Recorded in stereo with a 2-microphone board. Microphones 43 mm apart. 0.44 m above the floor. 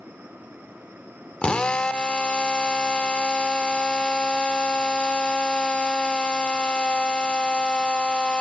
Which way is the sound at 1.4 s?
25° left (ahead or behind).